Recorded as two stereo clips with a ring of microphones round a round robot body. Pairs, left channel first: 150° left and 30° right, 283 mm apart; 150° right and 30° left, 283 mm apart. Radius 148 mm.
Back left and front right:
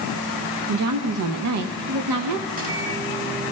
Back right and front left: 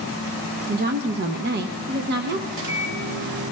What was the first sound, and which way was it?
A woman speaking, 20° right.